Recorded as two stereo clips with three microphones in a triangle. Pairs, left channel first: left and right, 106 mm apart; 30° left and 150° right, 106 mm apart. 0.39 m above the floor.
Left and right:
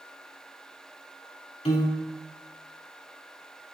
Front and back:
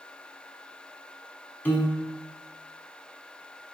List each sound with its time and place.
1.6 s a piano: 100° left, 0.7 m